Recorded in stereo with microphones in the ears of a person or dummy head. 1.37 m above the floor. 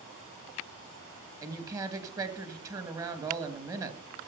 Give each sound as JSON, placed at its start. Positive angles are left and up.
{"t": 1.4, "sound": "a woman speaking", "side_deg": -20, "distance_m": 2.5}